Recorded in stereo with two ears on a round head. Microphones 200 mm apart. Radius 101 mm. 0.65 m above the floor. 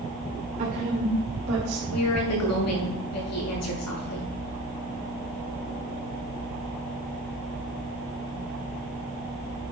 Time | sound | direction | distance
0.6 | a woman speaking | 35° right (ahead or behind) | 2.5 m
1.9 | a woman speaking | 85° left | 6 m